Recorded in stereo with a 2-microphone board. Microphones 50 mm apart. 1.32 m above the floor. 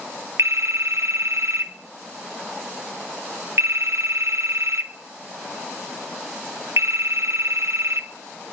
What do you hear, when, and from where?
0.4 s a phone ringing: 65° right (ahead or behind), 1.0 m